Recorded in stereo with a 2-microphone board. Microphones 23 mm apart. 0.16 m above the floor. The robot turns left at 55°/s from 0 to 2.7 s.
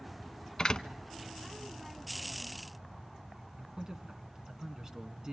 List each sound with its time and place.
0.6 s a door slam: 40° left (ahead or behind), 1.0 m
3.6 s a man speaking: 35° right (ahead or behind), 1.7 m